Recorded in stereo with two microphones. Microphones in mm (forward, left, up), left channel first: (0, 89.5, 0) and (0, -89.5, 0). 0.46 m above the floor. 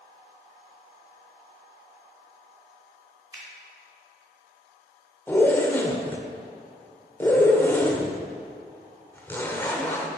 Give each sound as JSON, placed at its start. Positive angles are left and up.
{"t": 3.3, "sound": "a finger snap", "side_deg": -20, "distance_m": 2.5}
{"t": 5.3, "sound": "a zipper", "side_deg": 10, "distance_m": 0.9}